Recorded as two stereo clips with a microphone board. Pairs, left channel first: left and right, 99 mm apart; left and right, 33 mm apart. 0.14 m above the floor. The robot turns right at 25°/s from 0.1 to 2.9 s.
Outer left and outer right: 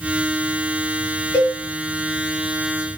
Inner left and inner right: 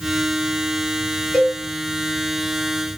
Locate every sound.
1.3 s a cowbell: 20° left (ahead or behind), 1.9 m; by 1.6 s 15° left (ahead or behind), 1.9 m